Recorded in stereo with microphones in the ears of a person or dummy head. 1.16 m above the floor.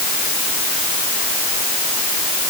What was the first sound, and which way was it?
Only background noise.